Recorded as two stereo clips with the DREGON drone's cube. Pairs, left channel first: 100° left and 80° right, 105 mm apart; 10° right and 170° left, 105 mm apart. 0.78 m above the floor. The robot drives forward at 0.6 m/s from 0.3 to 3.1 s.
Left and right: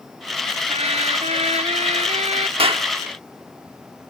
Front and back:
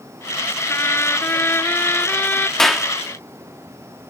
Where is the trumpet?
75° right; by 2.5 s 85° right.